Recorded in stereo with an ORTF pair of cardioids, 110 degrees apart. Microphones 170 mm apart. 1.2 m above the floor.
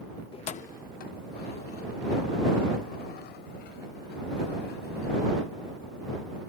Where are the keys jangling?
30° left; by 5.7 s 75° left.